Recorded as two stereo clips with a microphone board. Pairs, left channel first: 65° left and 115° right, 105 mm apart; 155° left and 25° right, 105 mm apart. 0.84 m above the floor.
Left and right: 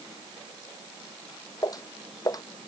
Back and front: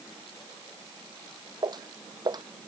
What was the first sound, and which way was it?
Footsteps, 20° left.